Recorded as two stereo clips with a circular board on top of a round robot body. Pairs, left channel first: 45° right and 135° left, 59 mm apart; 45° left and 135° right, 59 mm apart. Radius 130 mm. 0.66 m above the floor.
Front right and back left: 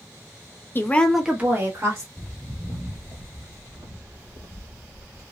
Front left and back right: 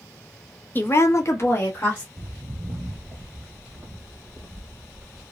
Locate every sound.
0.8 s a woman speaking: 5° right, 0.9 m; by 2.1 s 100° left, 1.6 m
2.2 s footsteps: 125° right, 0.7 m; by 5.2 s 140° left, 1.8 m